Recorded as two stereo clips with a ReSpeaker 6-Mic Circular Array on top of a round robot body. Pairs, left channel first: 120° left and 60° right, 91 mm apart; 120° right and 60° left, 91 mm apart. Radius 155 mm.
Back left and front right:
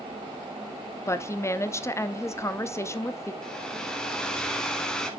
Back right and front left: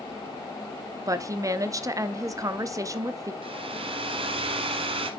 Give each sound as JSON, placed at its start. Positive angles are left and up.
{"t": 1.1, "sound": "a woman speaking", "azimuth_deg": 85, "distance_m": 1.0}
{"t": 3.4, "sound": "a hair dryer", "azimuth_deg": 40, "distance_m": 0.9}